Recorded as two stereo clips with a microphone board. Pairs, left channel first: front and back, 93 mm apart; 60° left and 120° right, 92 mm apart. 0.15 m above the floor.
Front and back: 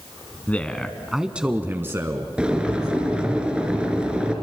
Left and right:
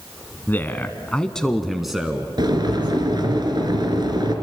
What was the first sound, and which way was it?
A man speaking, 45° left.